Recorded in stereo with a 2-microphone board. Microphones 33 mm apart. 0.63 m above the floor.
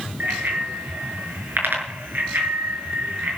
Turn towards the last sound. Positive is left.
turn(degrees=-75)  # may be behind; listen again after turning